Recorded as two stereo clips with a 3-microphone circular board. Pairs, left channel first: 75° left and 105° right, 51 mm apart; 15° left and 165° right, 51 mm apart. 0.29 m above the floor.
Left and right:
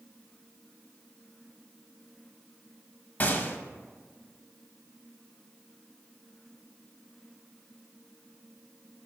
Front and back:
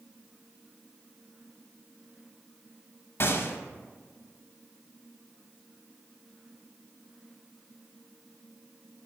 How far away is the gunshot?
About 0.7 m.